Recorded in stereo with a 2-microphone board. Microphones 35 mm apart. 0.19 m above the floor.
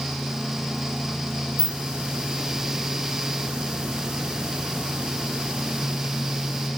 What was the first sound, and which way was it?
A hiss, 25° right (ahead or behind).